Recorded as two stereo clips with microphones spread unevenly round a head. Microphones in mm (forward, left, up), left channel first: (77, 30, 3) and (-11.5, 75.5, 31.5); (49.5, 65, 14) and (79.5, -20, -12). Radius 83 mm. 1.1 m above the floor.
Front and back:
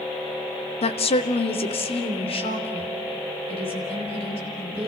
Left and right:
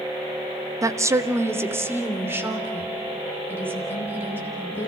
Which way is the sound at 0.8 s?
20° right.